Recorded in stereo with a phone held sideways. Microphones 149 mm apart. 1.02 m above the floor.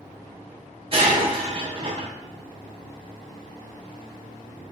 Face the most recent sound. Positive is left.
turn(degrees=-40)  # may be behind; listen again after turning